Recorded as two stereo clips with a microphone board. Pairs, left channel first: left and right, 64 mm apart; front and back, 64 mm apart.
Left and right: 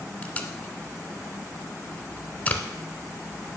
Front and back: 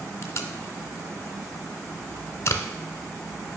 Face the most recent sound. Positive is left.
turn(degrees=30)